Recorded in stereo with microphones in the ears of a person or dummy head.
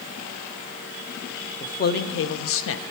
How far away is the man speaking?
About 0.8 m.